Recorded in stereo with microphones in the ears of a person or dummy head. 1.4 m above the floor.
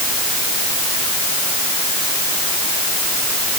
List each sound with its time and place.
Only background noise.